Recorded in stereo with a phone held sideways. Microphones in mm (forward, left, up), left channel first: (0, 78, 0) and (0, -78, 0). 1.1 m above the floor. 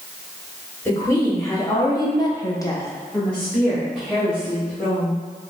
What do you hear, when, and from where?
0.8 s a woman speaking: 20° left (ahead or behind), 1.8 m; by 5.2 s 5° right (ahead or behind), 2.5 m